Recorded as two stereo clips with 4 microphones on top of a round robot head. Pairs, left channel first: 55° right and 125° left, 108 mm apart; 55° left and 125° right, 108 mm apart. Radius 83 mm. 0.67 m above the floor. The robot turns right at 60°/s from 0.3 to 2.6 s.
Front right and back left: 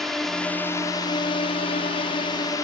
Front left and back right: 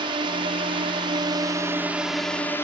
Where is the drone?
145° right; by 2.6 s 5° right.